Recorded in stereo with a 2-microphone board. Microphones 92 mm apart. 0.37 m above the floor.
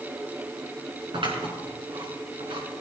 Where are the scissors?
65° right (ahead or behind), 4.5 m.